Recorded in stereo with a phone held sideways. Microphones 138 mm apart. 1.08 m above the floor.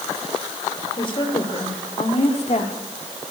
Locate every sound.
1.0 s a woman speaking: 35° left (ahead or behind), 4 m; by 2.8 s 60° left (ahead or behind), 2.5 m